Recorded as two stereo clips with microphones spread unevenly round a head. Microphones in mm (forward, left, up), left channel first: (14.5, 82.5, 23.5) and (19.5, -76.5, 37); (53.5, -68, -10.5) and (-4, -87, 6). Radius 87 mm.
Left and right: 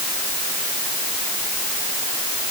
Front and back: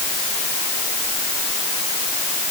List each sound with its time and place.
Only background noise.